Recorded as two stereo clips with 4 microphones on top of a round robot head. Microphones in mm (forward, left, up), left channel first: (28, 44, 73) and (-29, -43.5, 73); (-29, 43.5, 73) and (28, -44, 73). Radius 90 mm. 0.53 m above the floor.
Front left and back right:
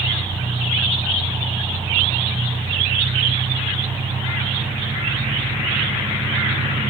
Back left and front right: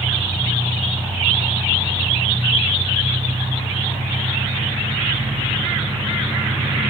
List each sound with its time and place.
0.0 s an engine running: 90° right, 6 m